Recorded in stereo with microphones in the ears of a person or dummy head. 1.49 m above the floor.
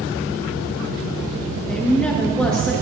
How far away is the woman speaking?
About 2 m.